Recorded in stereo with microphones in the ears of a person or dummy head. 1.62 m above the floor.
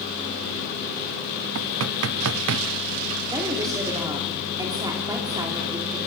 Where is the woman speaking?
20° right (ahead or behind), 4 m.